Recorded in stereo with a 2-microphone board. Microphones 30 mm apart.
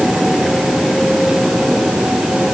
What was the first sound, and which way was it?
Only background noise.